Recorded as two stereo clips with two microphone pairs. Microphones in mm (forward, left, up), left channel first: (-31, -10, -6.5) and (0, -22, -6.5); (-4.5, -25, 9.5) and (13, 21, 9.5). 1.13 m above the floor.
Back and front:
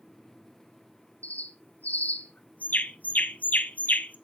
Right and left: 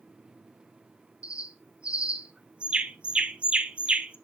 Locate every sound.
1.2 s a bird: 135° left, 0.8 m